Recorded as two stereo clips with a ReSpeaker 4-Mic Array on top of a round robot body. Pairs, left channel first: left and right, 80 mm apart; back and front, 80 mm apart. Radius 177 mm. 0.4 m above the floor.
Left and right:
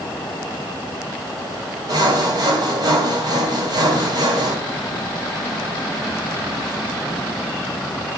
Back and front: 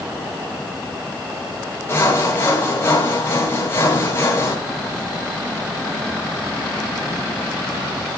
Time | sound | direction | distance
1.9 | sawing | 120° right | 3 m